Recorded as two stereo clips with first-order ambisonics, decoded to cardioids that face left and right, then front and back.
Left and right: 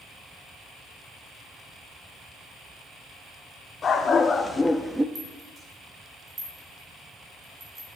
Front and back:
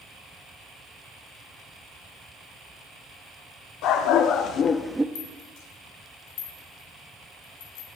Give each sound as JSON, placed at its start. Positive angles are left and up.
{"t": 3.8, "sound": "a dog barking", "azimuth_deg": 20, "distance_m": 1.7}
{"t": 5.2, "sound": "a rattle", "azimuth_deg": -15, "distance_m": 2.5}